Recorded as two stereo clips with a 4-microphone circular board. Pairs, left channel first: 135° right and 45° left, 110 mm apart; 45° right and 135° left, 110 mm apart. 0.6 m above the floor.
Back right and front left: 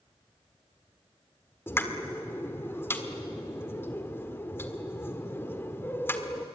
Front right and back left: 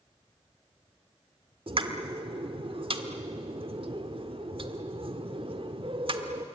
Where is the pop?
160° left, 1.7 m.